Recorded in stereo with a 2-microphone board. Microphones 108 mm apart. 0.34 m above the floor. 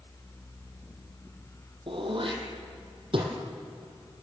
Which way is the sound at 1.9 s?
55° right (ahead or behind).